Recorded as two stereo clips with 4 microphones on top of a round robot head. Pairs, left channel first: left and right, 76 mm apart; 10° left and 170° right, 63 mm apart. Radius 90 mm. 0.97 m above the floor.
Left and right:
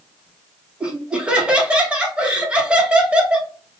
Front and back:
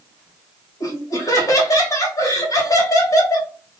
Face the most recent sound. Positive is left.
turn(degrees=-15)